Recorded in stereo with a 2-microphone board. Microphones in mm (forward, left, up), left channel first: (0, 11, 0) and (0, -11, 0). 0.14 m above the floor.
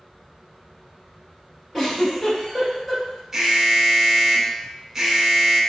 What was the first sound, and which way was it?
A giggle, 20° left (ahead or behind).